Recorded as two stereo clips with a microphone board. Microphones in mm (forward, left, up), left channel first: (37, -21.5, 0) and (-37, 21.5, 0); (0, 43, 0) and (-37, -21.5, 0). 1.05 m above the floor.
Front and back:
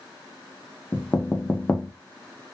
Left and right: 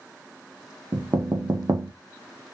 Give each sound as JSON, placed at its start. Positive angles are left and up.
{"t": 0.9, "sound": "knocking", "azimuth_deg": -100, "distance_m": 0.5}